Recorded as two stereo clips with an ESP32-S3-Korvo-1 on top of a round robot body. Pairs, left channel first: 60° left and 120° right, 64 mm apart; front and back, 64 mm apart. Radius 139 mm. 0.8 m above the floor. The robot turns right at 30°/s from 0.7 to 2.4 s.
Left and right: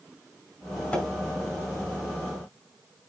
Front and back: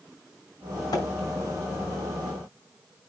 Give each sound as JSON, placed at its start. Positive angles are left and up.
{"t": 0.9, "sound": "a splash", "azimuth_deg": -15, "distance_m": 4.5}